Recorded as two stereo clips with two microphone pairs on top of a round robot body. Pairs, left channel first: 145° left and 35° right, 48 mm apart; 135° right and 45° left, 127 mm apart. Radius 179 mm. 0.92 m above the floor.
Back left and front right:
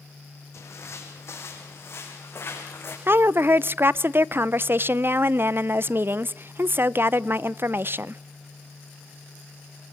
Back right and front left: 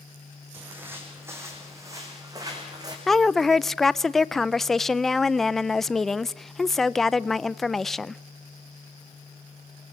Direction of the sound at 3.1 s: 45° right.